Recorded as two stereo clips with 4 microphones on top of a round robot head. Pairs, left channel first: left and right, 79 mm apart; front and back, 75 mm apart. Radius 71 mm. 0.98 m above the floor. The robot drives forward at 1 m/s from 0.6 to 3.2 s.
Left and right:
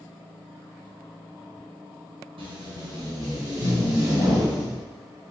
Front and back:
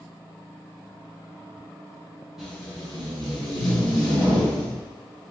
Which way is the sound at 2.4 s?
95° right.